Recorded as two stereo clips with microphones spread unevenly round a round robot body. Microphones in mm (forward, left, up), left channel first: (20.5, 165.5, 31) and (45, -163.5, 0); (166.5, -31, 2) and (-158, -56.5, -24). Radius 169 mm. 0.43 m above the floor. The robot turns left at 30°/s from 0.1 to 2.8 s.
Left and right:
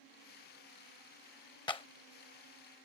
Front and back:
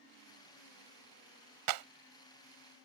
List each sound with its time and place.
1.7 s a clap: 175° left; by 1.9 s 170° left